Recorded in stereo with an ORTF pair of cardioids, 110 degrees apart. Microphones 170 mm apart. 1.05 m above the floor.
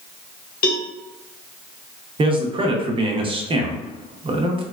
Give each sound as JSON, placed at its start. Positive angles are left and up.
{"t": 0.6, "sound": "a cowbell", "azimuth_deg": 60, "distance_m": 0.6}
{"t": 2.2, "sound": "a man speaking", "azimuth_deg": -30, "distance_m": 0.7}